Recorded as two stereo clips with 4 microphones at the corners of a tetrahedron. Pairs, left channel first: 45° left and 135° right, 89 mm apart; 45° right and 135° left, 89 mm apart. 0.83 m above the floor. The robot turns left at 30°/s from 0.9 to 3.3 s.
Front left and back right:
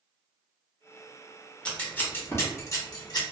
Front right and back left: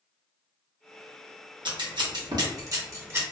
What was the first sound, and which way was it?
Scissors, 120° left.